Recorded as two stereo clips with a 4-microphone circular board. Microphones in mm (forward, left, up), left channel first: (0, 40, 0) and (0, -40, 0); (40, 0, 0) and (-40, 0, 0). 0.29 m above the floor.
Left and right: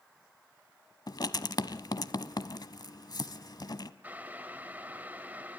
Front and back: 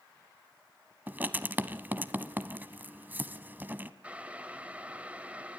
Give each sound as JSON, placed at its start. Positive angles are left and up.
{"t": 1.1, "sound": "writing", "azimuth_deg": 115, "distance_m": 0.9}
{"t": 4.0, "sound": "boiling", "azimuth_deg": -130, "distance_m": 1.3}